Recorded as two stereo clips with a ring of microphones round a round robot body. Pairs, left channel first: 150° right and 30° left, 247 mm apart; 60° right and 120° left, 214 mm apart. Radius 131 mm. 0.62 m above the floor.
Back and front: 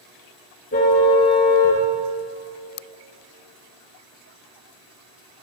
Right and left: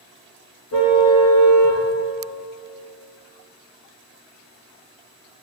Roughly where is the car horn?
Right.